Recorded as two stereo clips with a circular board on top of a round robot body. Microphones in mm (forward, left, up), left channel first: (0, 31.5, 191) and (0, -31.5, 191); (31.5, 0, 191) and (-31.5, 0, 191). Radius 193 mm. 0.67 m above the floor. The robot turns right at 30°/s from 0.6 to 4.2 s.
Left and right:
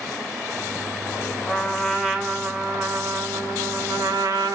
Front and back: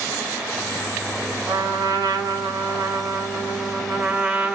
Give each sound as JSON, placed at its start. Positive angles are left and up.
{"t": 1.5, "sound": "a trumpet", "azimuth_deg": 170, "distance_m": 0.9}